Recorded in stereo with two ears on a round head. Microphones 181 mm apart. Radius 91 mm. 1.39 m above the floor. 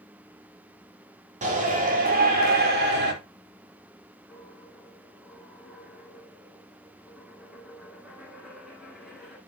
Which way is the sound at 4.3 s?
Centre (ahead or behind).